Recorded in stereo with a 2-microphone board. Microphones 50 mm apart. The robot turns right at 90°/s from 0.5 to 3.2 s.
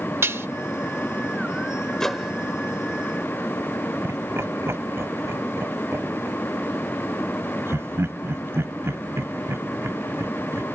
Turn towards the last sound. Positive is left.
turn(degrees=-60)  # may be behind; listen again after turning